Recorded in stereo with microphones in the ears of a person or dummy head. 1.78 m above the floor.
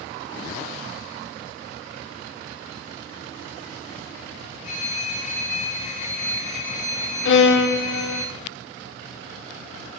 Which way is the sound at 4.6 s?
45° left (ahead or behind).